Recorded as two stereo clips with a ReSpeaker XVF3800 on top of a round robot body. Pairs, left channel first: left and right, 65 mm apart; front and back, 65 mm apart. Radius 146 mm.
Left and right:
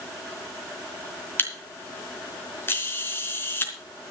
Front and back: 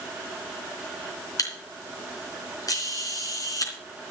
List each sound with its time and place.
1.4 s a camera shutter: 35° left, 3.5 m